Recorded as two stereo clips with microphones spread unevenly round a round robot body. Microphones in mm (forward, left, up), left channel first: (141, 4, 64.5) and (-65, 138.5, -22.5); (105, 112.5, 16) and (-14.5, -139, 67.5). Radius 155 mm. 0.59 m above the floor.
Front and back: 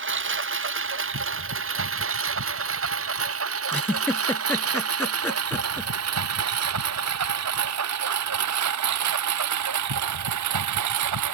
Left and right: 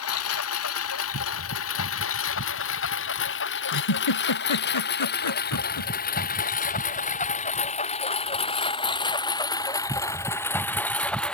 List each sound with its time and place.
0.0 s a lawn mower: 110° left; by 11.3 s 150° left
3.7 s a giggle: 50° left